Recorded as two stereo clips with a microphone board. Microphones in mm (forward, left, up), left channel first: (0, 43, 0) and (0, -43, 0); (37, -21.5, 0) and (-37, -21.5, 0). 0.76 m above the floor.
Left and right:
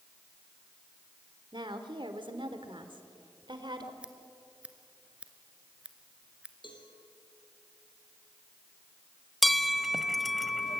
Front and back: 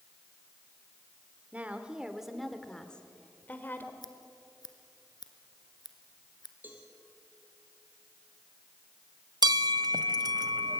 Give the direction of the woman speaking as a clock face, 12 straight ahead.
4 o'clock.